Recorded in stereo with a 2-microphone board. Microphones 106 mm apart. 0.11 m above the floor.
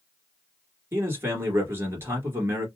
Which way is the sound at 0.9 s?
25° right (ahead or behind).